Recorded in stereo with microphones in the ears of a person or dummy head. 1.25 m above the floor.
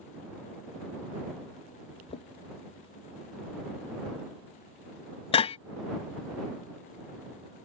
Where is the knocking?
30° left (ahead or behind).